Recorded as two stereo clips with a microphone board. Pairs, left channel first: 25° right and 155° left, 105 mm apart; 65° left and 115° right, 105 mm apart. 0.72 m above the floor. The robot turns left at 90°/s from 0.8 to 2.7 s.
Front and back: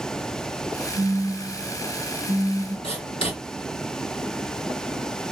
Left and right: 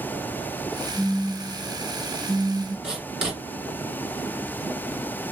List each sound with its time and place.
0.9 s a phone buzzing: 100° left, 2.0 m; by 2.7 s 60° right, 2.0 m
2.8 s writing: 35° right, 2 m